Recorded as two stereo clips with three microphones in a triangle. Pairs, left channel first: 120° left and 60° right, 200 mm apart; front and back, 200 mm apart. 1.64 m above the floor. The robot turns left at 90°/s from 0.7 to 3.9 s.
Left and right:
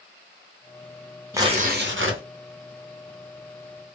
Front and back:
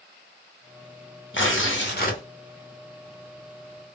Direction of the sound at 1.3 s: 20° left.